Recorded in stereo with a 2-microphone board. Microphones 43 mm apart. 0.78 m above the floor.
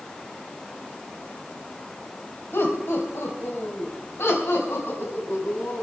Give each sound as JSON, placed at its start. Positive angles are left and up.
{"t": 2.5, "sound": "laughter", "side_deg": 70, "distance_m": 4.0}